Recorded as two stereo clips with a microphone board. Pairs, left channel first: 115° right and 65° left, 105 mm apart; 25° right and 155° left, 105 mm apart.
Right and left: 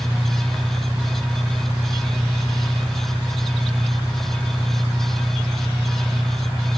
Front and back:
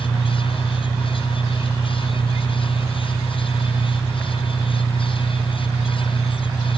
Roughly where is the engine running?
Left.